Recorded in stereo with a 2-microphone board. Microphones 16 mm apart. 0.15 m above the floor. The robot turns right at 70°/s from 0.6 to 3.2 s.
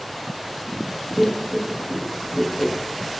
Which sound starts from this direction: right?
Laughter, at 1.2 s.